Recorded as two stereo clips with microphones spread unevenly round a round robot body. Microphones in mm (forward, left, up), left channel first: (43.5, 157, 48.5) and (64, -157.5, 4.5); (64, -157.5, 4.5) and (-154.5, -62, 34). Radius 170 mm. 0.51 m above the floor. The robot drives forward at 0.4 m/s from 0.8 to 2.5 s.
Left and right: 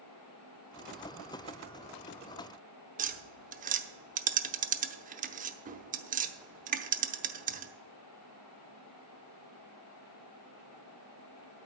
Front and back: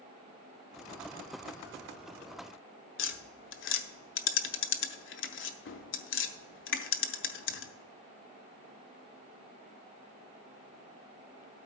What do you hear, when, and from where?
3.0 s tapping: 30° right, 0.8 m